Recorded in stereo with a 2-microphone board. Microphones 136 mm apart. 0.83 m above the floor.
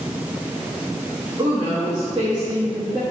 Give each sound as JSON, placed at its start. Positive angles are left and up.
{"t": 1.4, "sound": "a woman speaking", "side_deg": -35, "distance_m": 1.3}